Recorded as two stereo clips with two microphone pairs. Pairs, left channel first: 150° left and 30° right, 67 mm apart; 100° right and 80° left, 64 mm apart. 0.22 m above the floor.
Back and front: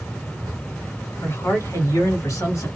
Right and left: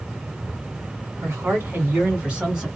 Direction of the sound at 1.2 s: 115° left.